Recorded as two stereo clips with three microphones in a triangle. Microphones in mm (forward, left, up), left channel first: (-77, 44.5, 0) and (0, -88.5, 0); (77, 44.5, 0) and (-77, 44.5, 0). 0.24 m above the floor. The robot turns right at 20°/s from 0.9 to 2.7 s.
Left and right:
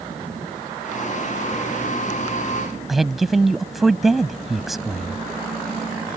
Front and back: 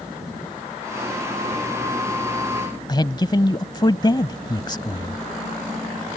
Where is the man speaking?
25° left.